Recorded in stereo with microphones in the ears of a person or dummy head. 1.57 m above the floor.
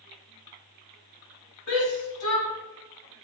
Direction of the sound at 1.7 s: 75° left (ahead or behind).